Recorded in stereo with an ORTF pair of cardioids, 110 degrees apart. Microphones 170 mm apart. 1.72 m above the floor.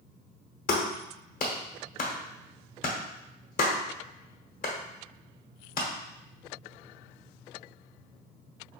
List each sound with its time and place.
0.7 s a clap: 55° left, 1.1 m